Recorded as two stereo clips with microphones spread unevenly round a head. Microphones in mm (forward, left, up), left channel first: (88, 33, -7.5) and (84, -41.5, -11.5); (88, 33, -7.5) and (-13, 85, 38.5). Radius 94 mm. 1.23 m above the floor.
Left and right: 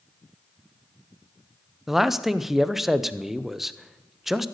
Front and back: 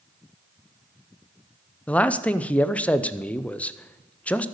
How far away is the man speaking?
About 0.6 m.